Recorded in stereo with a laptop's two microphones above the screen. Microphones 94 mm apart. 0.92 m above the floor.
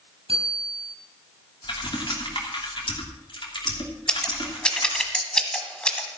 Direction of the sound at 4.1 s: 10° left (ahead or behind).